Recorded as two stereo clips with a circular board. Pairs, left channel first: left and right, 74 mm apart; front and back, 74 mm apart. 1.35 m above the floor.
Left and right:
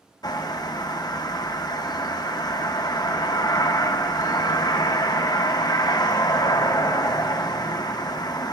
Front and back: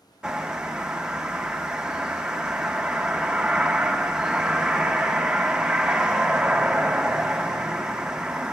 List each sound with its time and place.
0.2 s a bird: 100° left, 0.5 m